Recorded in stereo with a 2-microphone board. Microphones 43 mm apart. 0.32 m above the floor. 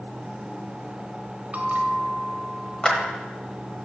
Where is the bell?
40° right (ahead or behind), 1.1 m.